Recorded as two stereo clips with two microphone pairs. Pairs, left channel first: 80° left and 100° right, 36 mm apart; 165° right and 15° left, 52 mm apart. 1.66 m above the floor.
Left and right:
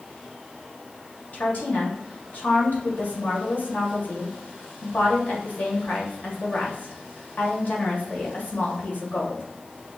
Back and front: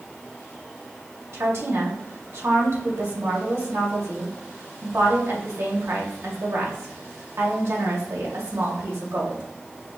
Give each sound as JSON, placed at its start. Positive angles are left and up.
{"t": 1.3, "sound": "a woman speaking", "azimuth_deg": 40, "distance_m": 1.9}